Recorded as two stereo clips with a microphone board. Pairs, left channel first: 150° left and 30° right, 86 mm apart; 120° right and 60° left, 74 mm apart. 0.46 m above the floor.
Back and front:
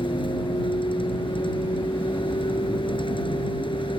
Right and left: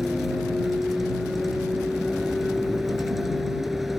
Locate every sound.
0.0 s a vehicle: 150° left